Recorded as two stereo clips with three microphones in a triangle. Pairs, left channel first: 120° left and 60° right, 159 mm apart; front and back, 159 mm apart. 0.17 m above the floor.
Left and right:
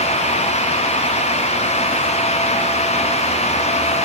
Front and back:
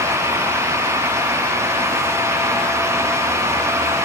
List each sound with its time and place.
Only background noise.